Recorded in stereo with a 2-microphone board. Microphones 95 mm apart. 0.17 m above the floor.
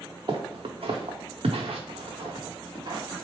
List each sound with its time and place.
0.3 s footsteps: 50° right (ahead or behind), 0.9 m